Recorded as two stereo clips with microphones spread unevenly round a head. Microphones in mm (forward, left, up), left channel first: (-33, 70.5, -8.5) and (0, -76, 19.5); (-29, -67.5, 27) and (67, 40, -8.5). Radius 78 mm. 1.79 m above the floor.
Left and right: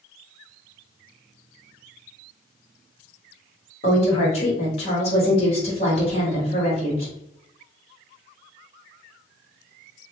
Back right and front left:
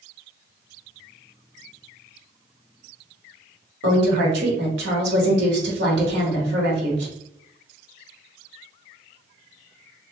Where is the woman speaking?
50° left, 1.2 m.